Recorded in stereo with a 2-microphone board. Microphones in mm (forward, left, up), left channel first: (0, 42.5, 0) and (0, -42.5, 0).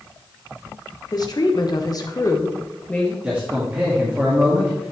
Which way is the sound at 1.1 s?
50° left (ahead or behind).